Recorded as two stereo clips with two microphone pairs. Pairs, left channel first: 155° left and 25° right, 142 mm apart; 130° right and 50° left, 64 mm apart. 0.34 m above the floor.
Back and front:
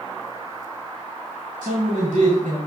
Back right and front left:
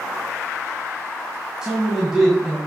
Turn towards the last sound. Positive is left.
turn(degrees=-30)